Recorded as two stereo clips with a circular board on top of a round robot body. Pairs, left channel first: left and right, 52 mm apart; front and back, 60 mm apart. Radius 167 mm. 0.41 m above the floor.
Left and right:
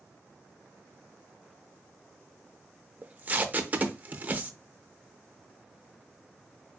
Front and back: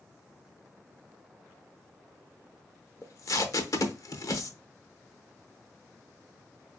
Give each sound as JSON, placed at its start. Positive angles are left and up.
{"t": 3.0, "sound": "tape being pulled", "azimuth_deg": -30, "distance_m": 0.8}